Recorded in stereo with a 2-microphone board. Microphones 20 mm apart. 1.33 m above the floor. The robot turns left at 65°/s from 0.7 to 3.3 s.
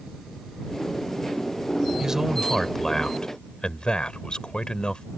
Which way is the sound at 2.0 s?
150° right.